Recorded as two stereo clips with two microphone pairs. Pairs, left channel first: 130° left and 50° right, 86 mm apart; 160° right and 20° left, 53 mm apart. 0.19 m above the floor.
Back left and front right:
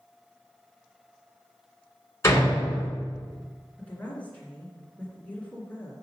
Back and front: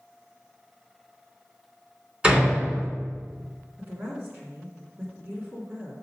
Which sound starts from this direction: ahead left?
A woman speaking, at 3.8 s.